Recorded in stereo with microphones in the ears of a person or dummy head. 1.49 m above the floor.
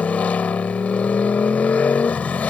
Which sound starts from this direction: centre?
A motorcycle, at 0.0 s.